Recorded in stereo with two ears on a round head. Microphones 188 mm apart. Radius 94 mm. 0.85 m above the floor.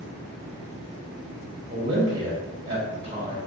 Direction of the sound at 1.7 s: 25° right (ahead or behind).